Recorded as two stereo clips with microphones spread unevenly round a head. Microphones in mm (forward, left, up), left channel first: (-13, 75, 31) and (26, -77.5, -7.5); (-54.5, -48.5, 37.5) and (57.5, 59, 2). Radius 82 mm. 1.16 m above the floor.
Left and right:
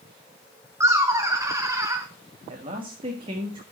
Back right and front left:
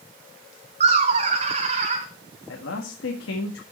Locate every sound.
0.8 s laughter: 5° right, 0.9 m
2.5 s a man speaking: 135° right, 1.8 m